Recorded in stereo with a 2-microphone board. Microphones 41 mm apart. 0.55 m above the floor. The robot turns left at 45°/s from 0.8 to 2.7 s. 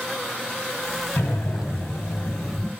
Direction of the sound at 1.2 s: 115° left.